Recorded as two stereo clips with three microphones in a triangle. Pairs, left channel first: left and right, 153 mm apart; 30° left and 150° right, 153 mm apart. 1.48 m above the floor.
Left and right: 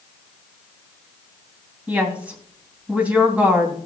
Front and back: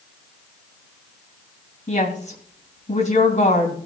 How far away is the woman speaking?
About 3 m.